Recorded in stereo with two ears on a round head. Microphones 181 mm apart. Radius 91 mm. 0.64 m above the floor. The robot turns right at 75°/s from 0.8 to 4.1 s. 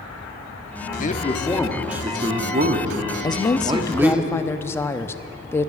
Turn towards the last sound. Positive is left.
turn(degrees=10)  # may be behind; listen again after turning